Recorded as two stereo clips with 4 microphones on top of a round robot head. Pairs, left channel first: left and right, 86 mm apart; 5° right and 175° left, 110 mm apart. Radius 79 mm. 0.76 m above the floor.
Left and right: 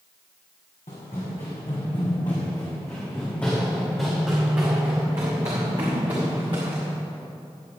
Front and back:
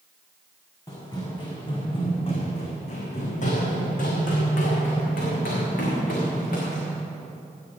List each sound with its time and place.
0.9 s running footsteps: 55° left, 3.5 m; by 6.9 s 35° right, 4.5 m